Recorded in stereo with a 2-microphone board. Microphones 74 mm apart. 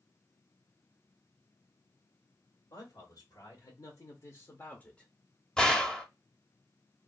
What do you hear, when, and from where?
2.7 s a man speaking: 65° left (ahead or behind), 1.5 m; by 5.1 s 5° left (ahead or behind), 0.6 m
5.6 s a gunshot: 10° left (ahead or behind), 0.5 m